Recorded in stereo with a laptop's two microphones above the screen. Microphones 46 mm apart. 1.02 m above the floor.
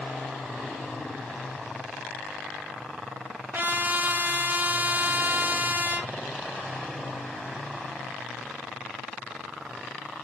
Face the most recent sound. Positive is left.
turn(degrees=-40)  # may be behind; listen again after turning